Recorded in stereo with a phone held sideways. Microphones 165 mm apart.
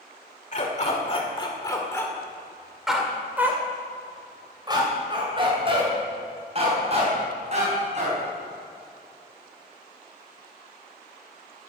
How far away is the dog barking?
About 1.9 m.